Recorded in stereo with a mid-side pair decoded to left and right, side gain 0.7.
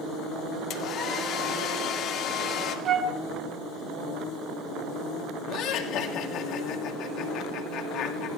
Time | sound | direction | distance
0.7 | a hair dryer | 55° left | 1.9 m
2.9 | a flute | 40° right | 1.2 m
5.5 | laughter | 60° left | 2.5 m